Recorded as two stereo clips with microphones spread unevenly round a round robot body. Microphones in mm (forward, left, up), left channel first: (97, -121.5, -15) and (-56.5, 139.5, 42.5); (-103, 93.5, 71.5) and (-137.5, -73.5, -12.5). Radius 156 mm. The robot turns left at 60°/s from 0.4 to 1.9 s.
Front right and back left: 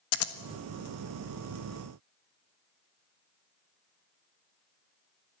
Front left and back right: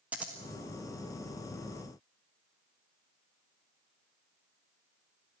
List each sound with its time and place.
0.1 s scissors: 35° right, 1.5 m